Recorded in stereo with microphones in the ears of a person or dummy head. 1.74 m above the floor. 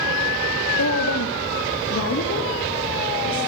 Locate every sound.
0.8 s a woman speaking: 80° left, 1.7 m; by 3.5 s 65° left (ahead or behind), 5.5 m